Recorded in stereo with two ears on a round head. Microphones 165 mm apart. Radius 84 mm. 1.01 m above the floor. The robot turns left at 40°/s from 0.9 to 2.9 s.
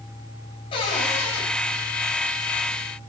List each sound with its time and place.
0.7 s a cupboard door: 30° left (ahead or behind), 5.5 m; by 1.4 s 5° left (ahead or behind), 5.5 m